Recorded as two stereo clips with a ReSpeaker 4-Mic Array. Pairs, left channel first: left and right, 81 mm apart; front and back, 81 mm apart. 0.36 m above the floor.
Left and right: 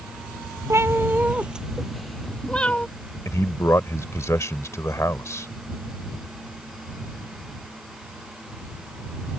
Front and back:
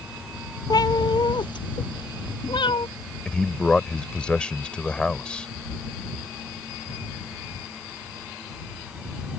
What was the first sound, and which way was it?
A cat meowing, 35° right.